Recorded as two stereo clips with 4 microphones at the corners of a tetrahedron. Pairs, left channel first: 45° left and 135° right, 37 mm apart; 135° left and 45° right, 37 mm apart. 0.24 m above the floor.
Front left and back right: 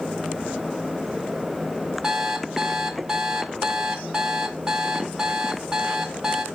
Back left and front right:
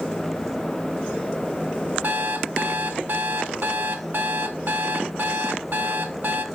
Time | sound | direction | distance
2.0 | an alarm clock | 65° right | 0.7 m